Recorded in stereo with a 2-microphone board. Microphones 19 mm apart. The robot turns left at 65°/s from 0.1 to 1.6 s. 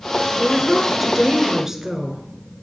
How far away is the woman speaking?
About 1.1 m.